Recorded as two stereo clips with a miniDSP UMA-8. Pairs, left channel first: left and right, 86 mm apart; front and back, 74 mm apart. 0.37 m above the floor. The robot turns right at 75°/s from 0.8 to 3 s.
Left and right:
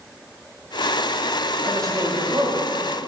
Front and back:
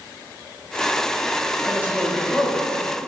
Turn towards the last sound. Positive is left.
turn(degrees=-30)